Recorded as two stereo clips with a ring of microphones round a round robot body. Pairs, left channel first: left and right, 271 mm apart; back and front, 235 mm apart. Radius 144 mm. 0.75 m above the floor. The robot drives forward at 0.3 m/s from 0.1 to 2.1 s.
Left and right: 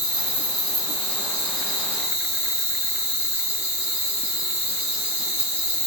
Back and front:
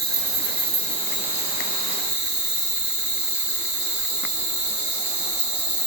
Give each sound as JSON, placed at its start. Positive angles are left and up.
{"t": 0.0, "sound": "an insect", "azimuth_deg": -90, "distance_m": 1.9}